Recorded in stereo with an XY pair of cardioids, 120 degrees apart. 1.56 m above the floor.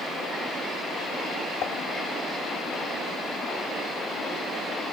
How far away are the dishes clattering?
About 1.7 m.